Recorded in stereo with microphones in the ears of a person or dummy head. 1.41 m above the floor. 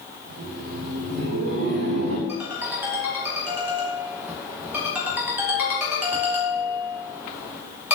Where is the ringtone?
Centre (ahead or behind), 0.7 m.